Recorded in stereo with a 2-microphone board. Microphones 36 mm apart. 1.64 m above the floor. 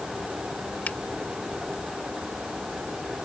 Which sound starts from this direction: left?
A finger snap, at 0.9 s.